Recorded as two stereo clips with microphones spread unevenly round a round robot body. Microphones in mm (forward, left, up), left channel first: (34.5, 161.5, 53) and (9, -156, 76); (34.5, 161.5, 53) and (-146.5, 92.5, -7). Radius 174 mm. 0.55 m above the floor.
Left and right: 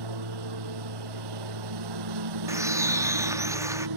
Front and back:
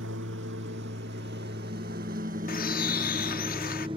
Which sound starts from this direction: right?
A lawn mower, at 0.0 s.